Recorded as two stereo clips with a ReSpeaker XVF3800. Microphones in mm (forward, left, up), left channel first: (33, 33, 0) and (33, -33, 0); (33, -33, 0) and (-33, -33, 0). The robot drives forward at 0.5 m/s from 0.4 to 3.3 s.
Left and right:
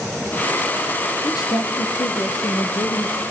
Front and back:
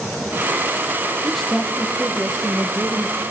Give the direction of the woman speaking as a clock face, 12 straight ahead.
9 o'clock.